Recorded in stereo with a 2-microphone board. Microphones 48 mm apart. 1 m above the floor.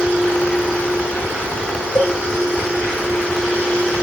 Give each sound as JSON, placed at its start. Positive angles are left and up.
{"t": 1.9, "sound": "a cowbell", "side_deg": 65, "distance_m": 1.9}